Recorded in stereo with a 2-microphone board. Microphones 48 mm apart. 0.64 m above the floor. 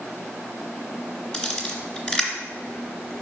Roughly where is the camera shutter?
Left.